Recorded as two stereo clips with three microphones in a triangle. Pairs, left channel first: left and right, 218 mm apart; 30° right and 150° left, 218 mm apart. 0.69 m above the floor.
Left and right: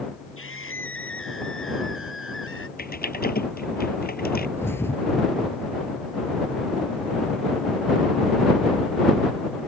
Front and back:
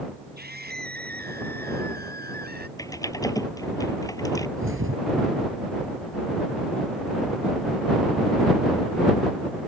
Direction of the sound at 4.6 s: 170° left.